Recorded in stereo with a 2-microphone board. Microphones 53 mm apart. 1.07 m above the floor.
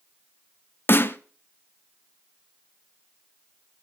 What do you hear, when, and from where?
0.9 s a snare drum: 40° left (ahead or behind), 0.8 m